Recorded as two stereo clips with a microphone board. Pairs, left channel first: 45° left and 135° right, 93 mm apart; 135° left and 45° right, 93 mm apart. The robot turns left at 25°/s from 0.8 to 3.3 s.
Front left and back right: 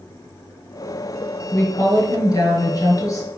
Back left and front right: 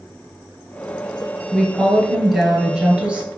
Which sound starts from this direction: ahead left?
A woman speaking, at 1.5 s.